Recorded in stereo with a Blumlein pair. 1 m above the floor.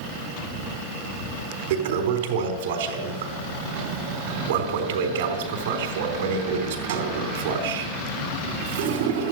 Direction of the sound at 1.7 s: 55° right.